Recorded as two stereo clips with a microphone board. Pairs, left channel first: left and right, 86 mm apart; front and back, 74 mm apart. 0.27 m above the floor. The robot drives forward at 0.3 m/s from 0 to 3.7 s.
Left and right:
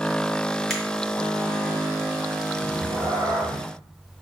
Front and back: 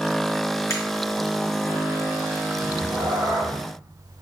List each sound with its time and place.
0.7 s a finger snap: 5° left, 1.6 m
2.6 s a cat meowing: 150° right, 1.4 m; by 3.6 s 155° right, 1.7 m